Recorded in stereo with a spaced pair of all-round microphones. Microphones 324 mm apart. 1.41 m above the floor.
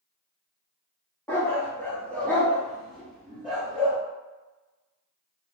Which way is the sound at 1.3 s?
5° left (ahead or behind).